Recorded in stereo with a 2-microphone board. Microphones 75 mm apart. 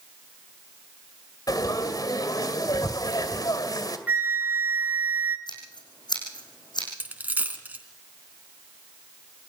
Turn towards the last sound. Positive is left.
turn(degrees=-20)  # may be behind; listen again after turning